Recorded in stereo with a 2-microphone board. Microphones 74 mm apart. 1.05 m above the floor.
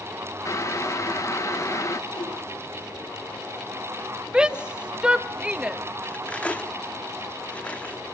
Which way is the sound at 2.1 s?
70° left (ahead or behind).